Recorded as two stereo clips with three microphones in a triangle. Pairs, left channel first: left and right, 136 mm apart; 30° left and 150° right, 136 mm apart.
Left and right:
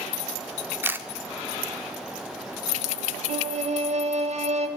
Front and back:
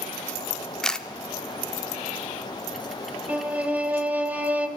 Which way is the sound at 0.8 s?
45° right.